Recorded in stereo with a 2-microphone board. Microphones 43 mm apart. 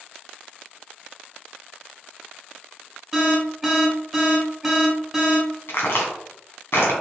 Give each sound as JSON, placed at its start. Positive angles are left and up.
{"t": 3.1, "sound": "an alarm", "side_deg": -5, "distance_m": 1.5}
{"t": 5.7, "sound": "a crack", "side_deg": 70, "distance_m": 2.5}